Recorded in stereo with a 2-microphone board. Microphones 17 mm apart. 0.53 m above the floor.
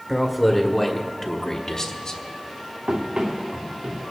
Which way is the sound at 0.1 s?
5° right (ahead or behind).